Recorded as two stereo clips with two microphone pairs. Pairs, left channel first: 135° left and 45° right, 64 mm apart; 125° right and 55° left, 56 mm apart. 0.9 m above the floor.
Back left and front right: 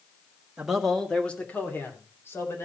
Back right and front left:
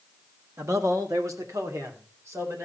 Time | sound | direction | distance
0.6 | a man speaking | 25° left | 1.5 m